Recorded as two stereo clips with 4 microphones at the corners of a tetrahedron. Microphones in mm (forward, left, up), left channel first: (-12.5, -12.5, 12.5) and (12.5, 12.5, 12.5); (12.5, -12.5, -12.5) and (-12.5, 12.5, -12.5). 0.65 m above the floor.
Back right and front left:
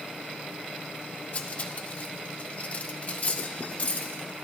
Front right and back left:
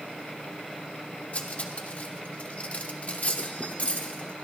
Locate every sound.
1.3 s cutlery clinking: 90° right, 0.9 m